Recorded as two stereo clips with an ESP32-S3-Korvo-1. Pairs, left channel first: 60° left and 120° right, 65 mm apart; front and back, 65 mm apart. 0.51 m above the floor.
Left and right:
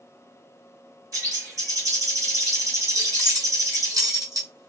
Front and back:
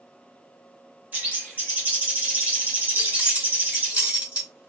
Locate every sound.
1.1 s a bird: 120° right, 1.6 m
3.0 s keys jangling: 115° right, 1.2 m